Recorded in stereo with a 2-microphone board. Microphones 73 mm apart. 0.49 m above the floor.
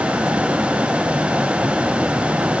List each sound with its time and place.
Only background noise.